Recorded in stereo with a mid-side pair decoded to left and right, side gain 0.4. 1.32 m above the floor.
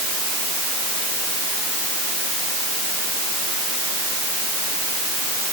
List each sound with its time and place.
Only background noise.